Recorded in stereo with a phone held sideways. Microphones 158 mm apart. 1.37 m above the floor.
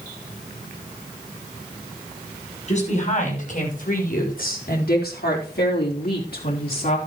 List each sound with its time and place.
2.7 s a woman speaking: 45° left (ahead or behind), 6.5 m; by 7.0 s 55° left (ahead or behind), 3.5 m